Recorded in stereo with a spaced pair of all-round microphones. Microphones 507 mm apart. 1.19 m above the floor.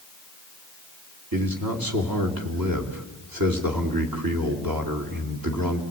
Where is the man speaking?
40° right (ahead or behind), 3.5 m.